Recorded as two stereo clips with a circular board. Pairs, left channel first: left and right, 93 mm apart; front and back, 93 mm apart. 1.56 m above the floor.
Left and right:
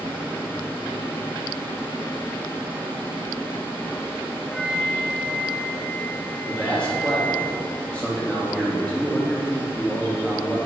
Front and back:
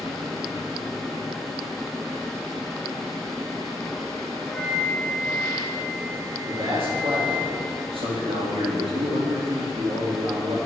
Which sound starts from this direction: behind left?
A flute, at 4.5 s.